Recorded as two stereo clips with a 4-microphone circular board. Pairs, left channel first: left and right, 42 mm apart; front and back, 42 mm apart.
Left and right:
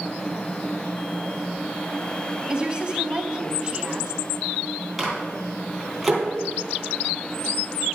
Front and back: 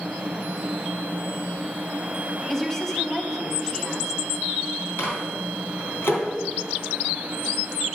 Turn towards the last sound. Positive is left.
turn(degrees=0)